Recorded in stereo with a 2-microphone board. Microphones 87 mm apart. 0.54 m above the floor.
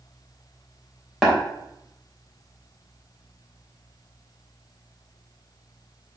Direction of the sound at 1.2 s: 5° right (ahead or behind).